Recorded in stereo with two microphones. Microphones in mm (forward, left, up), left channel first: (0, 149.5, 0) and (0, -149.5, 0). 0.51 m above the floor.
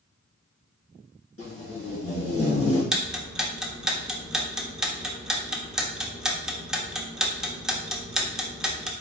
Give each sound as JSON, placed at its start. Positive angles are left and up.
{"t": 1.4, "sound": "tape being pulled", "side_deg": 50, "distance_m": 2.5}
{"t": 2.9, "sound": "ticking", "side_deg": 0, "distance_m": 0.7}